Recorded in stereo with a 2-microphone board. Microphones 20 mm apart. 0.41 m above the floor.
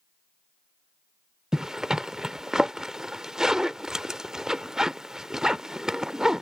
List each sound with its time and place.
1.5 s a zipper: 30° right (ahead or behind)